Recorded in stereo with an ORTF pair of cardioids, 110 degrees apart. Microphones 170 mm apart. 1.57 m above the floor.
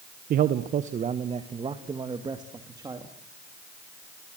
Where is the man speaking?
60° right, 1.1 m; by 3.1 s 20° right, 3 m.